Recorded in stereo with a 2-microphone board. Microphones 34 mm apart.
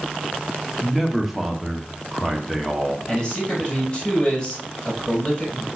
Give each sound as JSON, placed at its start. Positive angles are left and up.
{"t": 0.8, "sound": "a man speaking", "side_deg": -5, "distance_m": 1.6}
{"t": 3.1, "sound": "a man speaking", "side_deg": 25, "distance_m": 5.5}